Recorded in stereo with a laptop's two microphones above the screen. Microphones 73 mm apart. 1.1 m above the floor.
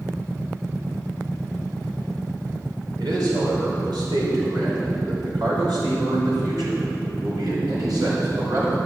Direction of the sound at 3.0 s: 80° right.